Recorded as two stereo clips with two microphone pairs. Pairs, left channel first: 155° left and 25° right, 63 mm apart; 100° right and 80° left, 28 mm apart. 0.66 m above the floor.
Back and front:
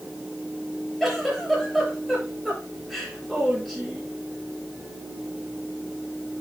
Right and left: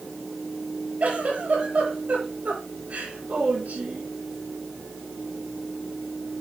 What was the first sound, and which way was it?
A giggle, 65° left.